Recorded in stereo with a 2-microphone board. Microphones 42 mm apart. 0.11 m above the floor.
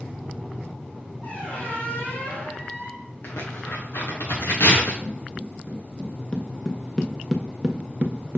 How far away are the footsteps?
About 1.8 m.